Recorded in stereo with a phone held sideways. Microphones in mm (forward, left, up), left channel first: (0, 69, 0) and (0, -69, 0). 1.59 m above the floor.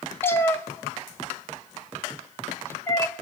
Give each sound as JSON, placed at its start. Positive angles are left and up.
{"t": 0.2, "sound": "a cat meowing", "side_deg": 15, "distance_m": 0.9}